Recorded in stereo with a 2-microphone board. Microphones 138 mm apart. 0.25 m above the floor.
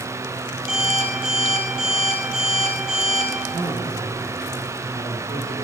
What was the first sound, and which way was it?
An alarm clock, 5° right (ahead or behind).